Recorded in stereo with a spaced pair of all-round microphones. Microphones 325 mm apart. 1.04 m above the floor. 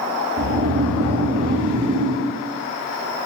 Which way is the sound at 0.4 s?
65° right (ahead or behind).